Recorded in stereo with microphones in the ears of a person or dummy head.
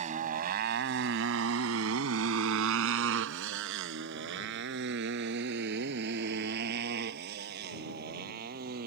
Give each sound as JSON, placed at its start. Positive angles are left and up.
{"t": 0.0, "sound": "a motorcycle", "side_deg": -40}